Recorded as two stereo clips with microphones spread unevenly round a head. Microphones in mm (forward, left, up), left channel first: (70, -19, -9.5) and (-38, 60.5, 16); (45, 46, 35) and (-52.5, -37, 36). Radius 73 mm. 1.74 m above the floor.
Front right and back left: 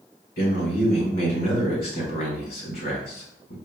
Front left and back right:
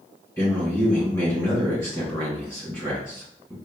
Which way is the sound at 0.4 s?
30° right.